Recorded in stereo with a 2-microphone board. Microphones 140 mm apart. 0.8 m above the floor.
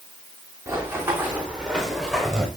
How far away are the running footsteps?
About 5.5 m.